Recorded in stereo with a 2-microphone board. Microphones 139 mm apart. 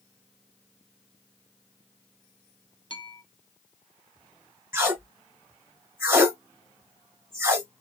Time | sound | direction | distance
2.9 | a bell | 35° left (ahead or behind) | 0.6 m
4.7 | tape being pulled | 20° right (ahead or behind) | 1.4 m